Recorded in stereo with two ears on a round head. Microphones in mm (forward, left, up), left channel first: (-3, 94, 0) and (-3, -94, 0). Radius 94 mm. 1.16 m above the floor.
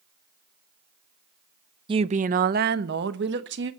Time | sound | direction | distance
1.9 | a woman speaking | 25° right (ahead or behind) | 0.5 m